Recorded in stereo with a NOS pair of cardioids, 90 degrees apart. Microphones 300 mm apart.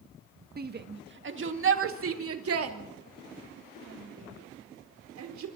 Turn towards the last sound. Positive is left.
turn(degrees=-65)